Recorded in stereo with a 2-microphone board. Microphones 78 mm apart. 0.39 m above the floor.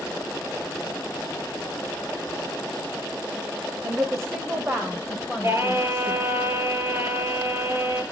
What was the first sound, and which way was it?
A woman speaking, 45° right (ahead or behind).